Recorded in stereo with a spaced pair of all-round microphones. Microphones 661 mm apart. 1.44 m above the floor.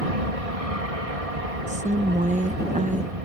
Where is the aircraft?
60° right (ahead or behind).